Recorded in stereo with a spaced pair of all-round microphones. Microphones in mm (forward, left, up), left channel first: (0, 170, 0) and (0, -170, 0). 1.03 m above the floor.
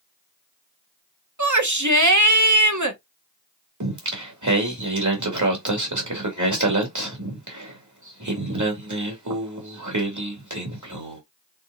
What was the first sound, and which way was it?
A shout, 60° right (ahead or behind).